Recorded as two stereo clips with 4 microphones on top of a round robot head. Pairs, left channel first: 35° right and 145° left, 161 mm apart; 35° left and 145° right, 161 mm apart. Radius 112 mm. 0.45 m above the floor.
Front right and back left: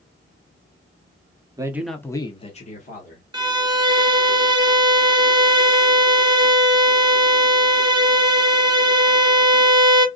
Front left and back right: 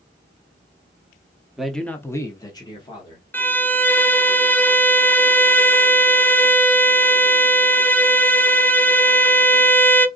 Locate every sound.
1.6 s a man speaking: 130° left, 1.0 m; by 3.2 s 25° right, 1.8 m
3.3 s a violin: 105° left, 0.9 m